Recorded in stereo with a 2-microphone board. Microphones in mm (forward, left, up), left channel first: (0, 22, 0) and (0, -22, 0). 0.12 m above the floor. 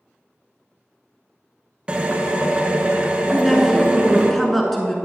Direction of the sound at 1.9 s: 20° right (ahead or behind).